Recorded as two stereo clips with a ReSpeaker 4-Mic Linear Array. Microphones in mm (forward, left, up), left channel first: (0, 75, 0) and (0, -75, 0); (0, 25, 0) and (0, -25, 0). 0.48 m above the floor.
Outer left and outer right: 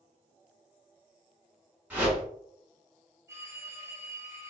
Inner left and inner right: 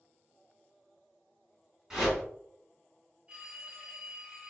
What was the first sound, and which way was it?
A whoosh, 10° right (ahead or behind).